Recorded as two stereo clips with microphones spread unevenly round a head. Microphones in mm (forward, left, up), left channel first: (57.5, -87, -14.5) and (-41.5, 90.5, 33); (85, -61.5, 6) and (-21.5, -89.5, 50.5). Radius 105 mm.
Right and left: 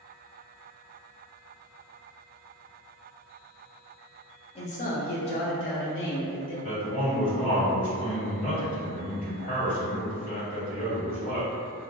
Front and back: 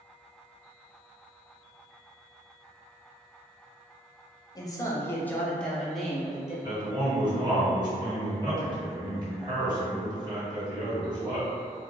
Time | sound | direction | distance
4.5 | a man speaking | 15° right | 0.7 m
6.6 | a man speaking | 105° right | 1.8 m